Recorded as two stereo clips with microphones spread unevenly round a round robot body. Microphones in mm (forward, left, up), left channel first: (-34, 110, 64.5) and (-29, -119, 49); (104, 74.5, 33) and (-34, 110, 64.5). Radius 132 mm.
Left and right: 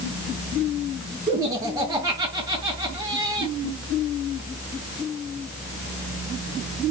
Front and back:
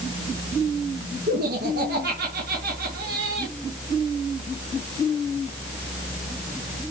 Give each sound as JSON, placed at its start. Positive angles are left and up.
{"t": 1.3, "sound": "laughter", "azimuth_deg": -160, "distance_m": 5.5}